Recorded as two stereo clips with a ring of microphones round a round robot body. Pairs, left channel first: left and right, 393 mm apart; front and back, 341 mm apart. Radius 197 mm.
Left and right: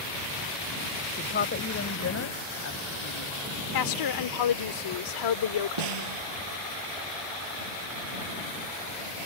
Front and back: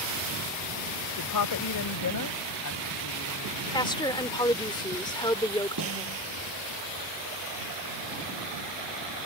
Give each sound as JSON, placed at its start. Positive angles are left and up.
{"t": 1.2, "sound": "a woman speaking", "azimuth_deg": 25}
{"t": 3.7, "sound": "a woman speaking", "azimuth_deg": 75}
{"t": 5.8, "sound": "a snare drum", "azimuth_deg": -120}